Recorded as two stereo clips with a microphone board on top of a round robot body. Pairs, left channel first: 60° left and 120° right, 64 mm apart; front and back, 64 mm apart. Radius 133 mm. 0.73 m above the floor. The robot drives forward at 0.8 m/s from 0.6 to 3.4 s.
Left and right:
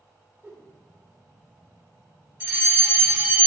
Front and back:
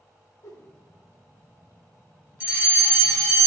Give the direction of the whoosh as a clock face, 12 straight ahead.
2 o'clock.